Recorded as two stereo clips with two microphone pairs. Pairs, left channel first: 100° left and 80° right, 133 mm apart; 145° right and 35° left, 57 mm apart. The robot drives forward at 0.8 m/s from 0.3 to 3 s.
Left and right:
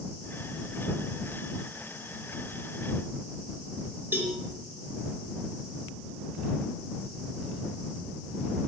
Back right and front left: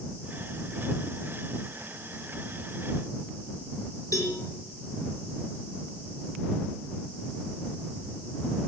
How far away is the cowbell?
About 4 m.